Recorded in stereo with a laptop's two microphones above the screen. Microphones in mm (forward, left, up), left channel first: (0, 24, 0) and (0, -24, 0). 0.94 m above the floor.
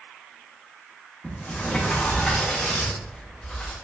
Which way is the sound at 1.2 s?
20° left (ahead or behind).